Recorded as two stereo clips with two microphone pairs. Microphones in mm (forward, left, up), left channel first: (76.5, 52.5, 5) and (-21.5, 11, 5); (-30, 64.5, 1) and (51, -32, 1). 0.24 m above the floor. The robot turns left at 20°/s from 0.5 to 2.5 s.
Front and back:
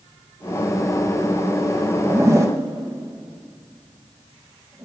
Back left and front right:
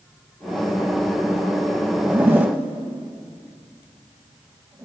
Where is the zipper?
110° right, 0.7 m; by 4.8 s 115° right, 0.7 m.